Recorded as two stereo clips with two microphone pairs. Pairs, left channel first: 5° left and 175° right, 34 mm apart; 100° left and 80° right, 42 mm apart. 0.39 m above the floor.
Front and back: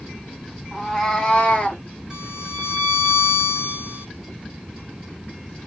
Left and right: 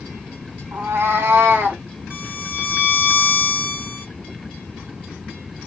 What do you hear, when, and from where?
0.7 s a cat meowing: 80° right, 1.2 m; by 1.8 s 40° right, 0.9 m
2.1 s a violin: 115° right, 1.4 m